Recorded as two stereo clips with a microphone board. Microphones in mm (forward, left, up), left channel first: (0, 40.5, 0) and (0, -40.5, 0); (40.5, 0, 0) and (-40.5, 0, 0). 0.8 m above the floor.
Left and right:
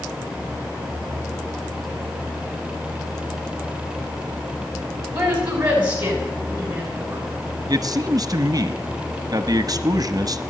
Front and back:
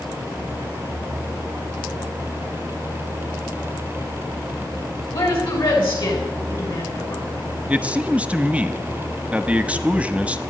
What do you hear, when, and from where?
5.1 s a woman speaking: 20° right, 6.5 m
7.7 s a man speaking: 110° right, 0.8 m